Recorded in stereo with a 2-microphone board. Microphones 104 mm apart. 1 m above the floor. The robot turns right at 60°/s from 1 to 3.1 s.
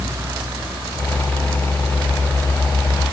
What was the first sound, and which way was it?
Only background noise.